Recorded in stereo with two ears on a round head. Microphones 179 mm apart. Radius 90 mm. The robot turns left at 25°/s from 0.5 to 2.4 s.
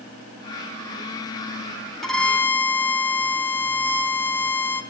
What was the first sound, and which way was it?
A violin, centre (ahead or behind).